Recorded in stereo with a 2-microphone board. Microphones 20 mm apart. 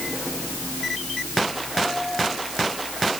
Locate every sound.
Only background noise.